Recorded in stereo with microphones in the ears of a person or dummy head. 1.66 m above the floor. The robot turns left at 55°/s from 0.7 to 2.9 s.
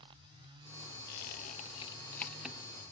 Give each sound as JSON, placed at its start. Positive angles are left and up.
{"t": 1.1, "sound": "a squeak", "side_deg": 55, "distance_m": 0.8}